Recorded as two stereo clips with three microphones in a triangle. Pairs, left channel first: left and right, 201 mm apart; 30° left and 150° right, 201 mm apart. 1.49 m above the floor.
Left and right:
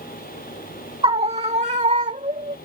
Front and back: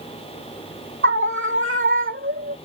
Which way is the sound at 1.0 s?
155° right.